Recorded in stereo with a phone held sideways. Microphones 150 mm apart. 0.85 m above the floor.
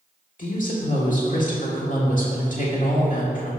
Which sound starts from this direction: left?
A woman speaking, at 0.4 s.